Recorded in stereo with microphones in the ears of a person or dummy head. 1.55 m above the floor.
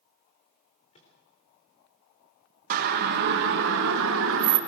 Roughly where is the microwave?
Left.